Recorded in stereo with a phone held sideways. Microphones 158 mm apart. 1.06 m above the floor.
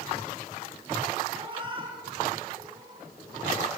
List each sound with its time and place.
1.3 s a cat meowing: 35° right (ahead or behind), 8 m; by 3.0 s 25° right (ahead or behind), 9.5 m